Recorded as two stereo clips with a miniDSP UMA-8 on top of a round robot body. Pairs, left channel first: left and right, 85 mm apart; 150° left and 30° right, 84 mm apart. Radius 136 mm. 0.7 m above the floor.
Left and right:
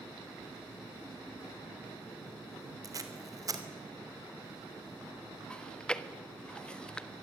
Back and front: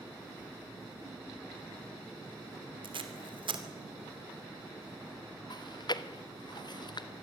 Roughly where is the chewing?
Behind.